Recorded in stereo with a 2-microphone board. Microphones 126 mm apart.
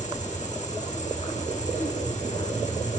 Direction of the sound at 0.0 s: 70° left (ahead or behind).